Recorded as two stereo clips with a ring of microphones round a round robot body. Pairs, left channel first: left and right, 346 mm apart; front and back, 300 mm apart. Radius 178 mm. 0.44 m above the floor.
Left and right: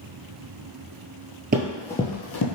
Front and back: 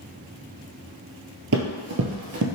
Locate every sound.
1.5 s running footsteps: 145° right, 0.5 m; by 2.5 s 130° left, 0.7 m